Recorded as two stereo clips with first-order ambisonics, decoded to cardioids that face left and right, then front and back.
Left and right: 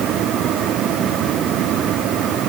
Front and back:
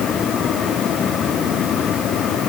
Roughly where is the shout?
No shout in this recording.